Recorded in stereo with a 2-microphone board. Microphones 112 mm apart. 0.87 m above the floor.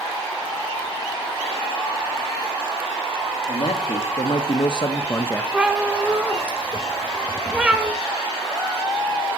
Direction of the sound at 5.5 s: 10° right (ahead or behind).